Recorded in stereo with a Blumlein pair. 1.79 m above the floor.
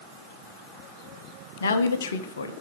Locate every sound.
1.6 s a woman speaking: 65° left, 1.0 m